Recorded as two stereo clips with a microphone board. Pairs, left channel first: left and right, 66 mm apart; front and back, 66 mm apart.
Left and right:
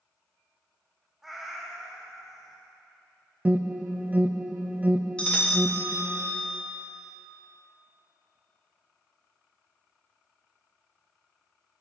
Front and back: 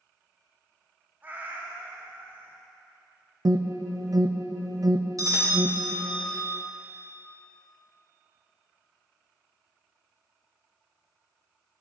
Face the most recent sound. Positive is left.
turn(degrees=165)